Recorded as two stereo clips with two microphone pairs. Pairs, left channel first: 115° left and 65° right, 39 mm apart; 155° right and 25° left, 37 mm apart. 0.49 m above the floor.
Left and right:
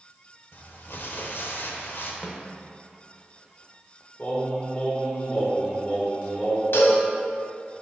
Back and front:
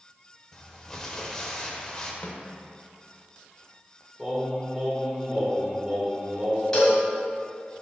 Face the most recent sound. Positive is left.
turn(degrees=130)